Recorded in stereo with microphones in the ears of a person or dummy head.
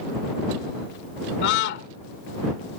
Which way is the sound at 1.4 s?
65° left (ahead or behind).